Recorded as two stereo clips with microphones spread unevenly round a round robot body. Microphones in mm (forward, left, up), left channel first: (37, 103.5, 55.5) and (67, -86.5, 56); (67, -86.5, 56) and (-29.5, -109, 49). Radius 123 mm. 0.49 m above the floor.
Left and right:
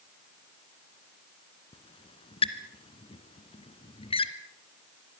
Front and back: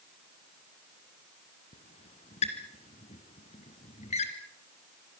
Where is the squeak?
35° left, 1.8 m.